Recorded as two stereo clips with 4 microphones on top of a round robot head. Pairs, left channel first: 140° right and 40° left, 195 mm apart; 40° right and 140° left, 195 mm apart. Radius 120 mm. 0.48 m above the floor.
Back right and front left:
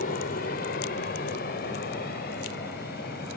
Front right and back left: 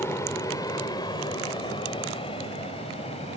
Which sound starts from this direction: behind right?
An aircraft, at 0.0 s.